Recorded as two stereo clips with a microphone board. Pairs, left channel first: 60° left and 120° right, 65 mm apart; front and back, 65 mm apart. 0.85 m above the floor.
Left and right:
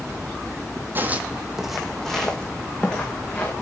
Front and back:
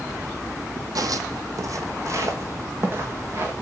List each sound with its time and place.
0.9 s footsteps: 175° right, 1.7 m; by 3.5 s 125° left, 4 m